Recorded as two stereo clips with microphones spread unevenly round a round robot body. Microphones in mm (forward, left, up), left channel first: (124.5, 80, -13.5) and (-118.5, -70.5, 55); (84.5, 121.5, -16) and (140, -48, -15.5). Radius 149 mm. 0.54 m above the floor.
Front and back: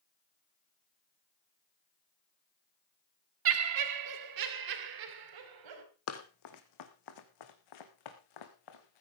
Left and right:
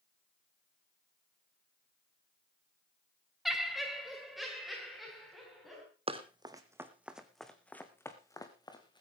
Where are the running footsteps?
15° right, 2 m; by 9.0 s 45° left, 3 m.